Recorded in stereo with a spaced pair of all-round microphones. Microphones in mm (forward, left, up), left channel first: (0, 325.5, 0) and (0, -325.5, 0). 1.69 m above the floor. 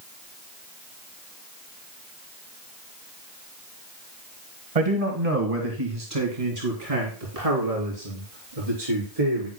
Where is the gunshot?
I don't hear a gunshot.